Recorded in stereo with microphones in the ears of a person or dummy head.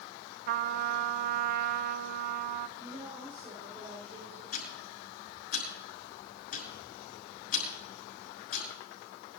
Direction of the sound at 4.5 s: 55° left (ahead or behind).